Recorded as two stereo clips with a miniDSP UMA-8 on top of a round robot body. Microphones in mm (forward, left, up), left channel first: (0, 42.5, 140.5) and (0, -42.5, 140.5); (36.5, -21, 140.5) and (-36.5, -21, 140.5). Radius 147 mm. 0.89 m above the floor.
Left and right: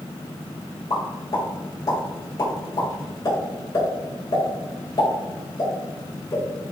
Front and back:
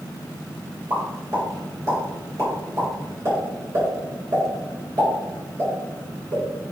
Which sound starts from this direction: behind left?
A pop, at 0.9 s.